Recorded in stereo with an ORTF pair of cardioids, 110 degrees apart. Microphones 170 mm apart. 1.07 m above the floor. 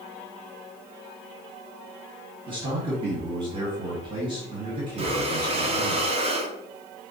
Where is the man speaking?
25° right, 1.6 m.